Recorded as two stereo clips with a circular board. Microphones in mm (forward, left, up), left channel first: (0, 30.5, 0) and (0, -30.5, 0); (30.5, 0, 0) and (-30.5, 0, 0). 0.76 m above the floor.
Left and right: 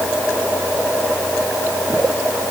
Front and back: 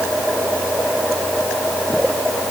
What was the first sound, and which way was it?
Only background noise.